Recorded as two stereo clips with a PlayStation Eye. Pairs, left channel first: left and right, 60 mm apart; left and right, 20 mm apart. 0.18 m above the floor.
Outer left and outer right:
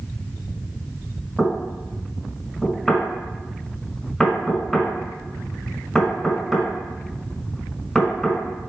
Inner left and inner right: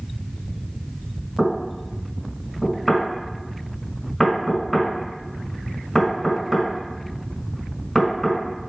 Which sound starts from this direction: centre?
Knocking, at 1.4 s.